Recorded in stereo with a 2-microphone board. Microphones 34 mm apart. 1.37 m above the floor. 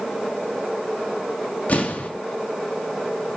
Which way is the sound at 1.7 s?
50° left (ahead or behind).